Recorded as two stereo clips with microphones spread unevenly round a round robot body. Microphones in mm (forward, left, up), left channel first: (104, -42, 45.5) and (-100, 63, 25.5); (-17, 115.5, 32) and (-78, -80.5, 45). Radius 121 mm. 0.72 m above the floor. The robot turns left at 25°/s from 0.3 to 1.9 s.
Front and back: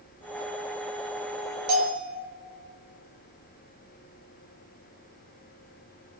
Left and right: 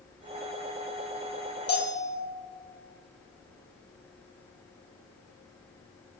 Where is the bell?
135° left, 3 m; by 2.1 s 130° left, 3 m.